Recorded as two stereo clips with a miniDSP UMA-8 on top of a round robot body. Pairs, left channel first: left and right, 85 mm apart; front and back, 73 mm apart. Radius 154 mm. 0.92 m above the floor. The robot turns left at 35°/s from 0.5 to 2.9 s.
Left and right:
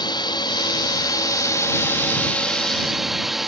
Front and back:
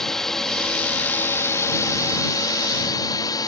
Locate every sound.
0.0 s a drone: 80° left; by 3.5 s straight ahead